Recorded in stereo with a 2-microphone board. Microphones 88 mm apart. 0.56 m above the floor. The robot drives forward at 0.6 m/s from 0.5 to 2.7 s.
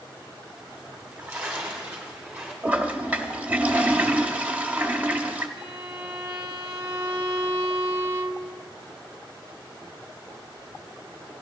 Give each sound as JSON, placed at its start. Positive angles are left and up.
{"t": 0.9, "sound": "a splash", "side_deg": -20, "distance_m": 1.9}
{"t": 2.6, "sound": "a toilet flushing", "side_deg": -15, "distance_m": 0.9}
{"t": 5.6, "sound": "a violin", "side_deg": -40, "distance_m": 0.6}